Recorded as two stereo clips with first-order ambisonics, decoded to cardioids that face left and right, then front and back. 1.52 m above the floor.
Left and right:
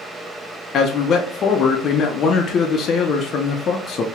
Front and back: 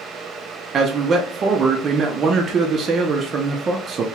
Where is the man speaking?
130° left, 0.5 m.